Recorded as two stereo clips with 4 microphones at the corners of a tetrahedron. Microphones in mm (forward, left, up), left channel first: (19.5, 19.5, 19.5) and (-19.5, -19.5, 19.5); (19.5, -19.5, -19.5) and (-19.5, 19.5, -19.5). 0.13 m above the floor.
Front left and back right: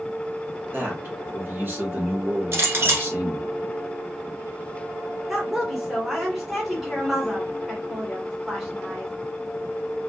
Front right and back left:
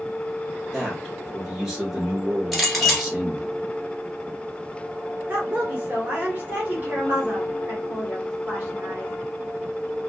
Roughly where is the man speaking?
Behind right.